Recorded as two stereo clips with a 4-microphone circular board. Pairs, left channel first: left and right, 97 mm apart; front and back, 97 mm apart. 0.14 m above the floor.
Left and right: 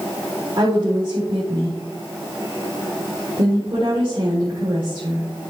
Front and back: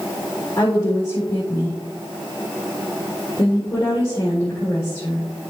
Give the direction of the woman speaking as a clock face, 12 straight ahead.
2 o'clock.